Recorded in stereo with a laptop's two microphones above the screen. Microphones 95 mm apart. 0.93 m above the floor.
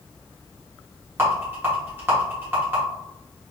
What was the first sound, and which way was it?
A rattle, 25° right (ahead or behind).